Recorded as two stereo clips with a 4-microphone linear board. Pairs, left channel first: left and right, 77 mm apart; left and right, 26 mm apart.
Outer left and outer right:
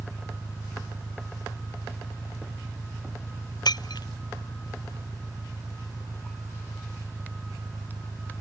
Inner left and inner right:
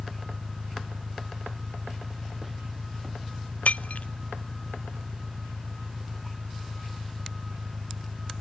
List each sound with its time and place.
0.0 s an engine running: 5° right (ahead or behind)
3.6 s breaking glass: 70° left (ahead or behind)